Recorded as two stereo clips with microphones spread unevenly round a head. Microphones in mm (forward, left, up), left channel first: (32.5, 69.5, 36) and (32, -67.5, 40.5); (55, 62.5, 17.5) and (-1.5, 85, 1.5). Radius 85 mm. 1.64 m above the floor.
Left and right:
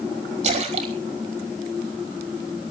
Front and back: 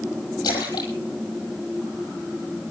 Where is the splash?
55° right, 5.5 m.